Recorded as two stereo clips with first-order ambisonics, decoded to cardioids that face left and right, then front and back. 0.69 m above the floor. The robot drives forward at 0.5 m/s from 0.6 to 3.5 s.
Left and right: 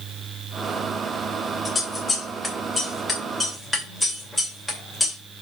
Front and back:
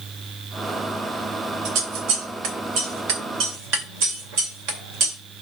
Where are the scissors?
165° left, 1.3 m; by 5.2 s 170° left, 2 m.